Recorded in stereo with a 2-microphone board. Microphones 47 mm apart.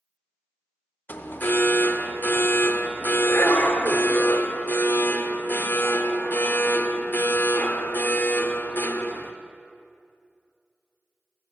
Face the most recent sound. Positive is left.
turn(degrees=45)  # may be behind; listen again after turning